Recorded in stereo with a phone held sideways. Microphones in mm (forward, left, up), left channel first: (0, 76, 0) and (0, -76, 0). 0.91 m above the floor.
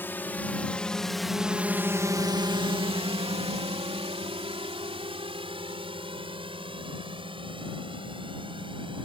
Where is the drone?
15° left (ahead or behind); by 9.1 s 35° right (ahead or behind).